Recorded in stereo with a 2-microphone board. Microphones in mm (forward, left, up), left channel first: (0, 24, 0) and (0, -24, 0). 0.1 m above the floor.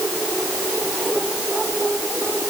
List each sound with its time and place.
Only background noise.